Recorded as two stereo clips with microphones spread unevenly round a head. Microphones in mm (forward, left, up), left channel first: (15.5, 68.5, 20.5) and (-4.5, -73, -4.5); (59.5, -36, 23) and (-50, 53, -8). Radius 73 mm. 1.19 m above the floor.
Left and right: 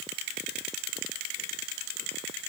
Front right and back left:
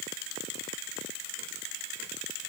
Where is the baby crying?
I don't hear a baby crying.